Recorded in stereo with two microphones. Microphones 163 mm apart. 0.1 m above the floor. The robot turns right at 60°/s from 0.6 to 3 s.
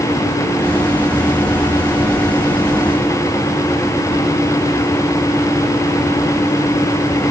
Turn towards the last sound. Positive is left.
No sound to turn to.